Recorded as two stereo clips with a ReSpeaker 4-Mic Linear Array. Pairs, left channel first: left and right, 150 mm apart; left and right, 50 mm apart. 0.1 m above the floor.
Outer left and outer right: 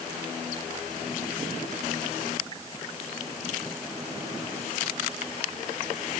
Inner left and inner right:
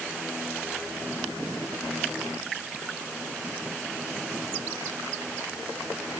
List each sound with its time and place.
Only background noise.